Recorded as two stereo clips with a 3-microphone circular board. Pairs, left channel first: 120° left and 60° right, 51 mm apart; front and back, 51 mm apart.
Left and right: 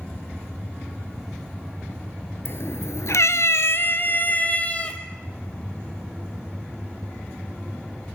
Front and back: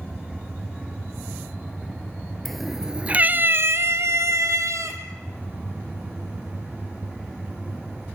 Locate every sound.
2.5 s a cat meowing: 85° left, 1.6 m; by 5.0 s 175° right, 3 m